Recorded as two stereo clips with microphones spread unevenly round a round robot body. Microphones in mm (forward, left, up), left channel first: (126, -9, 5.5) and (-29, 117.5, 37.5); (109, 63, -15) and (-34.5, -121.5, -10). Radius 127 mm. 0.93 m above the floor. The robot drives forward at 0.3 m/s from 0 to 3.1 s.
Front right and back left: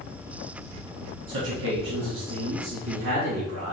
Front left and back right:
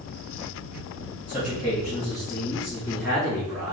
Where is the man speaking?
130° left, 1.3 m; by 3.7 s 145° left, 1.7 m.